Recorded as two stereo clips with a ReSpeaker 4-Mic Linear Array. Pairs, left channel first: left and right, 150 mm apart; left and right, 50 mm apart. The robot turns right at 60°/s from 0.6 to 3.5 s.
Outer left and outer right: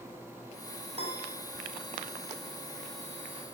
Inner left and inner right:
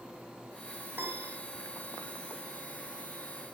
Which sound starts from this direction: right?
A piano, at 0.9 s.